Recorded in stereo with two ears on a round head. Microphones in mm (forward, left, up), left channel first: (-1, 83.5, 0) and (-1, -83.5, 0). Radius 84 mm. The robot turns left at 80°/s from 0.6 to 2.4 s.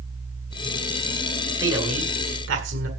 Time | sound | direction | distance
1.6 | a man speaking | 10° right | 7.5 m